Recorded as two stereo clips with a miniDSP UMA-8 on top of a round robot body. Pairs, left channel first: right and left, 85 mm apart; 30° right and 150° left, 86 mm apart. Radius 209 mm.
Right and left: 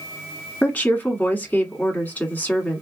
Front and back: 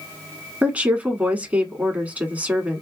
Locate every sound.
0.6 s a woman speaking: 150° right, 1.6 m